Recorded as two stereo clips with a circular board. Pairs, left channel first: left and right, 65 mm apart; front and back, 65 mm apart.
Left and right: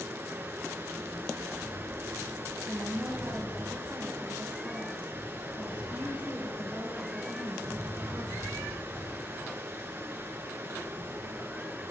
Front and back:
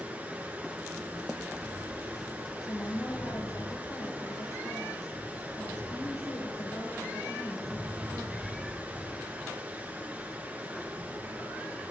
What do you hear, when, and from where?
0.0 s running water: 130° right, 1.8 m
2.6 s a woman speaking: 20° right, 3.5 m